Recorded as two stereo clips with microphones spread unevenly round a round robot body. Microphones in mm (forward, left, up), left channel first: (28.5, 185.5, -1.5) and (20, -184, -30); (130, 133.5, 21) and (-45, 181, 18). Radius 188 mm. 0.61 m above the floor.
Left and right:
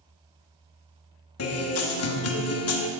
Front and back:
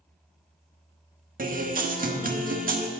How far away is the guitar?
About 1.2 m.